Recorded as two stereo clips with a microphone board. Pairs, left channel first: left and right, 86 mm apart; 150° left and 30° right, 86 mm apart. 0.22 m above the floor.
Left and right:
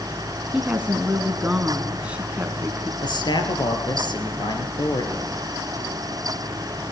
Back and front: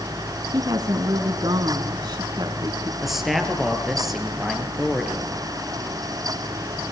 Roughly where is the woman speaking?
Ahead.